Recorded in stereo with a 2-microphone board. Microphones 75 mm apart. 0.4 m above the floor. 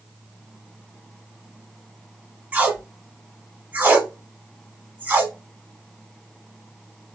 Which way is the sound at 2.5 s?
20° right (ahead or behind).